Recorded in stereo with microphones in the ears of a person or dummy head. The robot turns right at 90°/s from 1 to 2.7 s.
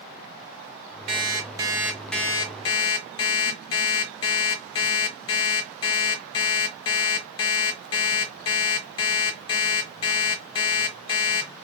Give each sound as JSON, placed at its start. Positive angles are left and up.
{"t": 1.1, "sound": "an alarm clock", "azimuth_deg": -80, "distance_m": 0.8}